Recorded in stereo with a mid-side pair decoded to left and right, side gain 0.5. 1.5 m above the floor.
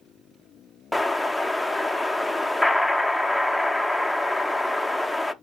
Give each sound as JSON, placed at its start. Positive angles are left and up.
{"t": 0.9, "sound": "an explosion", "azimuth_deg": 10, "distance_m": 0.5}